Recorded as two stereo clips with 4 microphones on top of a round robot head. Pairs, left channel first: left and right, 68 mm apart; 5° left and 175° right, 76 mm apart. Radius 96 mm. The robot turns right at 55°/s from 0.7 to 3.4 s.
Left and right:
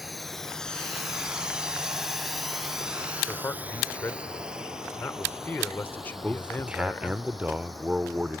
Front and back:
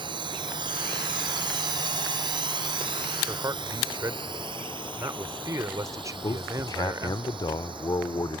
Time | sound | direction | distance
0.0 | a drone | straight behind | ?
3.3 | a man speaking | 145° left | ?
6.2 | a man speaking | 20° right | ?